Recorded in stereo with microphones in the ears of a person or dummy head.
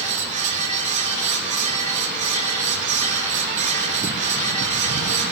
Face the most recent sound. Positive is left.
turn(degrees=-40)  # may be behind; listen again after turning